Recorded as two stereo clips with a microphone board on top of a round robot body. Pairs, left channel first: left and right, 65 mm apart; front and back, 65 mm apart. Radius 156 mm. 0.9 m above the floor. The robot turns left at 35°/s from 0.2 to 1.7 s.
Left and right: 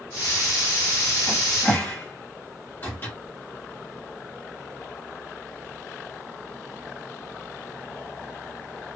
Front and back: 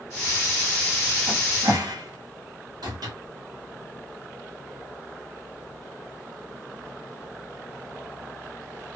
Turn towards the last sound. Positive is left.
turn(degrees=155)